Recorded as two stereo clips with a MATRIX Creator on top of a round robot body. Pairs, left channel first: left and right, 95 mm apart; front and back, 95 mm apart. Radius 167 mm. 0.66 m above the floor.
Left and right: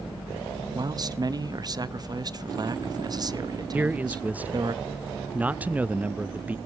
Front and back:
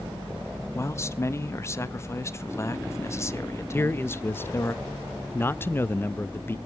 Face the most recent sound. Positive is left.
turn(degrees=-35)